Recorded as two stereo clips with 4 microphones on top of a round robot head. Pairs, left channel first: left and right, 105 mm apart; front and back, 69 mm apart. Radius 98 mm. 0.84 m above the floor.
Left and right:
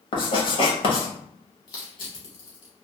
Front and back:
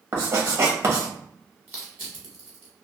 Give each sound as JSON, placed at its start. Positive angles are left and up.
{"t": 0.1, "sound": "writing", "azimuth_deg": 130, "distance_m": 1.1}
{"t": 1.7, "sound": "crushing", "azimuth_deg": 125, "distance_m": 0.9}